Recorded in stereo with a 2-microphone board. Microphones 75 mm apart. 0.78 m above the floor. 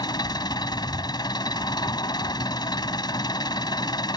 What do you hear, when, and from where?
0.0 s an engine running: 70° left (ahead or behind)